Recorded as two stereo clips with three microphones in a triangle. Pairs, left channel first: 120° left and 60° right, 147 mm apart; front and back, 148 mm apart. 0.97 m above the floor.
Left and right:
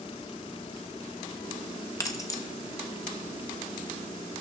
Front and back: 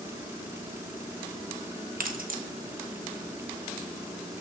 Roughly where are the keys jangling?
Behind.